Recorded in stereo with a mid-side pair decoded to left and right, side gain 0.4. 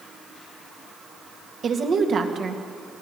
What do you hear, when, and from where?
1.6 s a woman speaking: 55° right, 2.5 m